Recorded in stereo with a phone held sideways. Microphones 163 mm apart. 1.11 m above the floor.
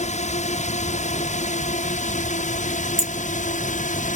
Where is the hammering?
40° left (ahead or behind).